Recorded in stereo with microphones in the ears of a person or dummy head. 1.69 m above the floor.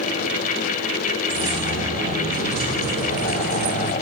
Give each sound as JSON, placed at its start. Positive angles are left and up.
{"t": 1.3, "sound": "keys jangling", "side_deg": -40, "distance_m": 2.5}